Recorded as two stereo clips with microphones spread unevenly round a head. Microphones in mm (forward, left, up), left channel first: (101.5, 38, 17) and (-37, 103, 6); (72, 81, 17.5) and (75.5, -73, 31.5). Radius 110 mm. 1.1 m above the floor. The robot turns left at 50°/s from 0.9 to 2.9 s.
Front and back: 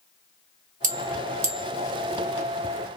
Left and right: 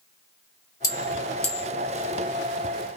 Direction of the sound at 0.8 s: 155° left.